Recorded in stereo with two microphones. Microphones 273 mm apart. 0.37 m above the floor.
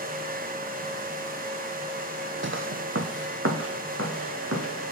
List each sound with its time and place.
2.4 s footsteps: 45° right (ahead or behind), 0.6 m; by 4.9 s 55° right (ahead or behind), 3 m